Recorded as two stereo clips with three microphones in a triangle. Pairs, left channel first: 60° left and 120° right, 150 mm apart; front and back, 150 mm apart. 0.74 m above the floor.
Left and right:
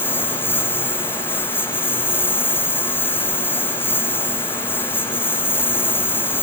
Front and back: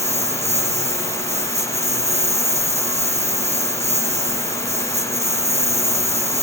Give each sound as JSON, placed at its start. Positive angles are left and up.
{"t": 0.0, "sound": "a lawn mower", "azimuth_deg": 135}